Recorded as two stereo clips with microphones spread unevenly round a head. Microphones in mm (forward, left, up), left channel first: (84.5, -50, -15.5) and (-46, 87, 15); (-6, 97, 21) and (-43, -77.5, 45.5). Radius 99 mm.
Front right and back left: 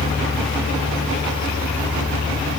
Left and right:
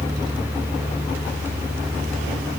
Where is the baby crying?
I don't hear a baby crying.